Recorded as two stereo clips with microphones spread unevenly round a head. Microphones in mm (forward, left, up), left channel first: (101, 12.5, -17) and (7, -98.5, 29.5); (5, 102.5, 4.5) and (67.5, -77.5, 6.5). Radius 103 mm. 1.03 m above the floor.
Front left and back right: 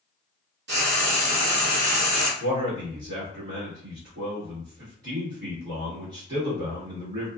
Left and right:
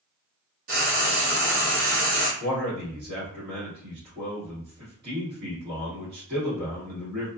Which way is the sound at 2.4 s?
120° right.